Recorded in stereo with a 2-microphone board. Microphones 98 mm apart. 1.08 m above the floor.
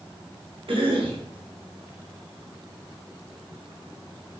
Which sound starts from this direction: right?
A cough, at 0.7 s.